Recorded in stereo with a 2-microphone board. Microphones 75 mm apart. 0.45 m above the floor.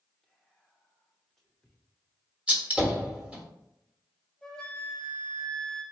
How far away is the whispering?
About 0.7 m.